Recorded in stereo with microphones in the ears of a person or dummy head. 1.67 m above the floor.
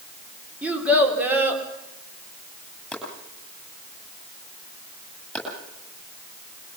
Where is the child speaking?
10° right (ahead or behind), 4 m.